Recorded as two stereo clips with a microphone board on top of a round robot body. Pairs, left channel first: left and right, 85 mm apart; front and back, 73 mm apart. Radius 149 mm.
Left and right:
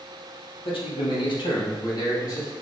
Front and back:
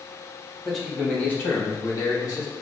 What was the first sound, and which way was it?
A man speaking, 90° left.